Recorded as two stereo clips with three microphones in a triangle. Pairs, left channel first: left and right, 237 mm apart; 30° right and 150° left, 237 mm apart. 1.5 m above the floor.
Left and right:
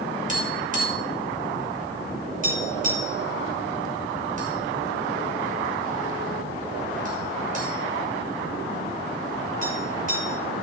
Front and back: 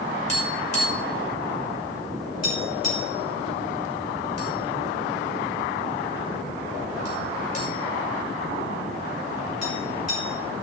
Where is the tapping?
35° right, 6 m.